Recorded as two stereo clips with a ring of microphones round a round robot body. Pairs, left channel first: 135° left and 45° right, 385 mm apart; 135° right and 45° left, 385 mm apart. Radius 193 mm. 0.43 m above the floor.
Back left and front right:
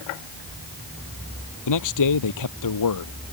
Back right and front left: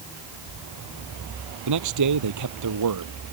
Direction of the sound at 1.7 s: 90° left.